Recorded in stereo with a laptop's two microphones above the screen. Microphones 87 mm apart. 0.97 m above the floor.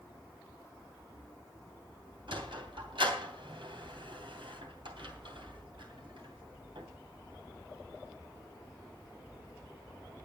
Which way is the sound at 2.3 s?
75° right (ahead or behind).